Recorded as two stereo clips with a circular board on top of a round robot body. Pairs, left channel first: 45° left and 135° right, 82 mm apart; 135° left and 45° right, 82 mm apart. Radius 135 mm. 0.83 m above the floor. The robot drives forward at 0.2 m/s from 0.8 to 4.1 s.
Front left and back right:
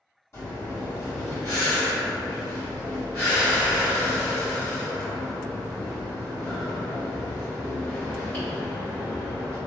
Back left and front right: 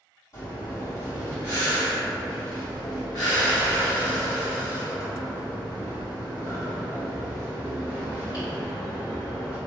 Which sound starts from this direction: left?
Breathing, at 0.3 s.